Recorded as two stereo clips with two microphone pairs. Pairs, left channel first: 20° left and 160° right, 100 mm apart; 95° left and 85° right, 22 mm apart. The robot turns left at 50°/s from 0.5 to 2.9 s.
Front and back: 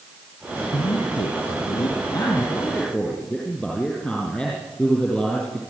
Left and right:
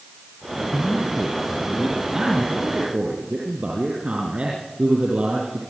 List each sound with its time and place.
0.7 s a man speaking: 40° left, 4.5 m; by 5.6 s 70° right, 4.5 m